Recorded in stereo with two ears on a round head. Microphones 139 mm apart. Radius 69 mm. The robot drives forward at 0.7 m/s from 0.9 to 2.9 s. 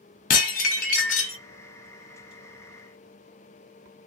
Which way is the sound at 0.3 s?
55° left (ahead or behind).